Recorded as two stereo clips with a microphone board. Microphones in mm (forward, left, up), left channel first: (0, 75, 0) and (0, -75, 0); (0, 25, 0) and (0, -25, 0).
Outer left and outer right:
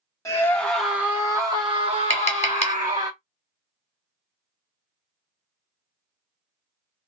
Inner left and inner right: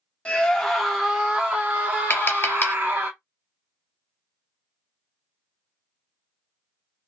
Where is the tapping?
45° left (ahead or behind), 0.8 m.